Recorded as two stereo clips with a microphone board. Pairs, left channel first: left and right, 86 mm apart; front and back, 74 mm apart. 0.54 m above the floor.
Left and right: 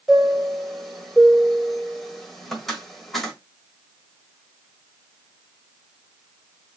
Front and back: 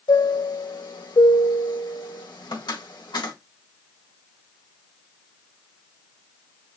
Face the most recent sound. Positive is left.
turn(degrees=0)